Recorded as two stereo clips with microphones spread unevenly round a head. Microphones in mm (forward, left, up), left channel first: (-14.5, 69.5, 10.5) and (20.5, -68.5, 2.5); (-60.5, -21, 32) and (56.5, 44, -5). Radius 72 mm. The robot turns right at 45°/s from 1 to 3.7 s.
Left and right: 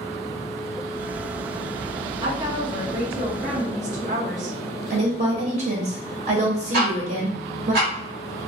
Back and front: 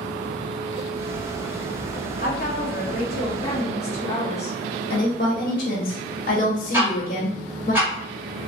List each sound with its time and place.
2.2 s a woman speaking: 140° right, 1.2 m; by 4.6 s 70° right, 1.2 m
4.9 s a woman speaking: 115° right, 1.1 m
6.7 s ticking: 55° right, 1.6 m